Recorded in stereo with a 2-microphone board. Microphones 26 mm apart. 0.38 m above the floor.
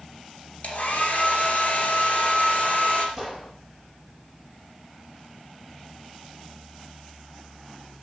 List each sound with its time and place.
0.6 s a hair dryer: 55° left (ahead or behind), 2.5 m
3.2 s a gunshot: 15° left (ahead or behind), 7.5 m